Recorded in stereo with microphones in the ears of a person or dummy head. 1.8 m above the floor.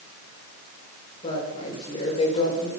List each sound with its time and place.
1.2 s a woman speaking: 35° left (ahead or behind), 8.5 m